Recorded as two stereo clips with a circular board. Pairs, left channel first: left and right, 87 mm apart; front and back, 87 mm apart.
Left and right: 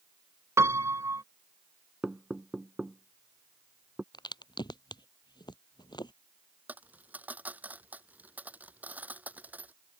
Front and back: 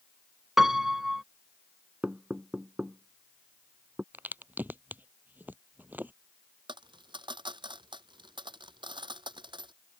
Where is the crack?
115° left.